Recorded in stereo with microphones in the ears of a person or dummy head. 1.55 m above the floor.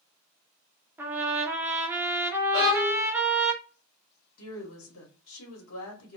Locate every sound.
1.0 s a trumpet: 10° right (ahead or behind), 0.6 m
2.5 s a violin: 15° left (ahead or behind), 0.6 m
4.4 s a woman speaking: 80° left, 1.0 m